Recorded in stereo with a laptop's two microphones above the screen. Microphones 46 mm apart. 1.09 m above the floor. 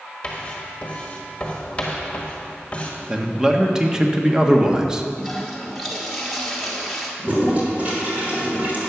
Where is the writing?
25° left (ahead or behind), 1.5 m.